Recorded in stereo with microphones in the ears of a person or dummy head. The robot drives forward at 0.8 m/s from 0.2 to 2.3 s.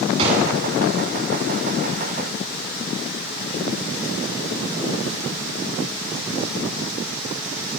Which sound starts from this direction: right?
A gunshot, at 0.2 s.